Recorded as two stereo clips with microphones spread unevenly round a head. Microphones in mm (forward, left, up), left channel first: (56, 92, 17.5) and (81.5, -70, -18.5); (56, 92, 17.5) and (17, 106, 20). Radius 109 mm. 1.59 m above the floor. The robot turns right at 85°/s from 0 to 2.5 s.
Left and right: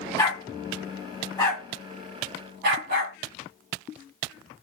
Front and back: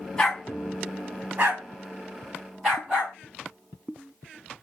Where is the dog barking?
45° left, 1.5 m; by 3.2 s 120° right, 1.5 m.